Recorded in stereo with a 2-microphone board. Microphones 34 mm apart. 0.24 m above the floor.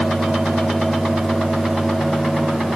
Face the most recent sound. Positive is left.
No sound to turn to.